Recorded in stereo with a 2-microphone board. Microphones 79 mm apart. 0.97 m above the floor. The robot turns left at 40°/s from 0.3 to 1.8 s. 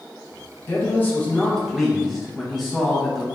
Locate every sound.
0.7 s a man speaking: 40° left, 0.6 m; by 3.2 s 5° right, 0.6 m